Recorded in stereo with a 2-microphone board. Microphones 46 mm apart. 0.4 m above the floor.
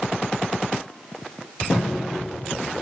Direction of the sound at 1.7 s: 10° left (ahead or behind).